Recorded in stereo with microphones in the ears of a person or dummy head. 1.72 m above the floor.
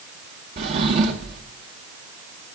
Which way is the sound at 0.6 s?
25° right (ahead or behind).